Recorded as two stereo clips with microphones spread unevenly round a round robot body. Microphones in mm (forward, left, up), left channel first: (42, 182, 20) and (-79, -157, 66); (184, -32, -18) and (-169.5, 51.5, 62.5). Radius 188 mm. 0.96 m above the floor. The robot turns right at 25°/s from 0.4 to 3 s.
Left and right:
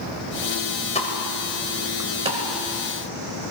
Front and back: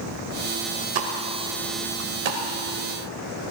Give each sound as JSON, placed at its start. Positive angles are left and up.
{"t": 0.9, "sound": "a pop", "azimuth_deg": 145, "distance_m": 2.0}